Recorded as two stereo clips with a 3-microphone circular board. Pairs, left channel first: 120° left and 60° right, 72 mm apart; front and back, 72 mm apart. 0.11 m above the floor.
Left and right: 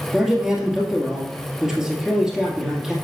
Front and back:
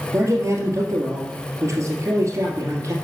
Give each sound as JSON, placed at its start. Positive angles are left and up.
{"t": 0.1, "sound": "a man speaking", "azimuth_deg": -145, "distance_m": 2.5}